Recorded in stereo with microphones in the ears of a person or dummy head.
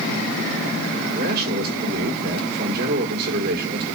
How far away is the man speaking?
About 5 m.